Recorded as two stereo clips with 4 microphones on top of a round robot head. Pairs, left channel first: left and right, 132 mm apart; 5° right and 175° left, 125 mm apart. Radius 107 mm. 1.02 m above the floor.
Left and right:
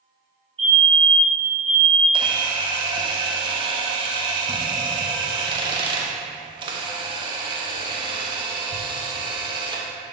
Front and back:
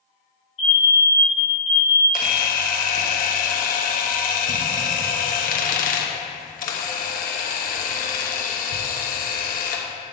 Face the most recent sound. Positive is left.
turn(degrees=-30)